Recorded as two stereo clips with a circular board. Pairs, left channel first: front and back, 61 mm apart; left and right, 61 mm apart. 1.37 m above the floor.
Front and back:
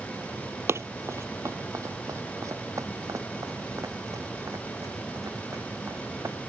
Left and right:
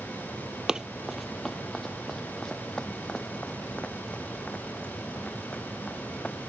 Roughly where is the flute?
No flute in this recording.